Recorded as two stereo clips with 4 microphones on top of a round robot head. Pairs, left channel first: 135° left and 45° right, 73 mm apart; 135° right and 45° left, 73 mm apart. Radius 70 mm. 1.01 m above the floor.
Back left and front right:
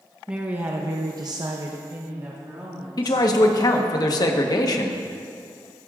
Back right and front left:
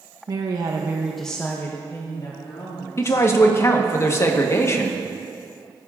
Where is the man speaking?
170° left, 1.1 m.